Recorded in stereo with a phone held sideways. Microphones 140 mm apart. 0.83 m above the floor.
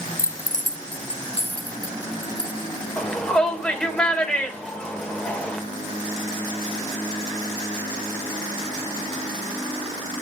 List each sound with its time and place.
0.2 s keys jangling: 80° left, 0.5 m; by 2.7 s 35° left (ahead or behind), 2.5 m
3.0 s a shout: 5° left (ahead or behind), 2.5 m